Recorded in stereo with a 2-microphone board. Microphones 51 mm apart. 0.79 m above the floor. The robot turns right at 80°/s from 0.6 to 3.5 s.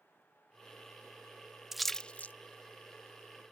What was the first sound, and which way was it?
A splash, 5° right (ahead or behind).